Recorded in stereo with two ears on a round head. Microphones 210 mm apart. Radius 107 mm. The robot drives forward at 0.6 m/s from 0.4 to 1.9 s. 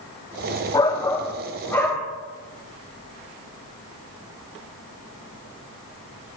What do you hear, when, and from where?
0.7 s a shout: 15° left (ahead or behind), 0.6 m; by 2.1 s 10° left (ahead or behind), 1.1 m